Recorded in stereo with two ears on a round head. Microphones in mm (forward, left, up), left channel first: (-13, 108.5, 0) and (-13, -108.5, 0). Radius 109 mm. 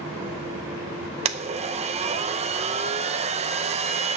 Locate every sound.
1.2 s a blender: 25° right (ahead or behind), 0.6 m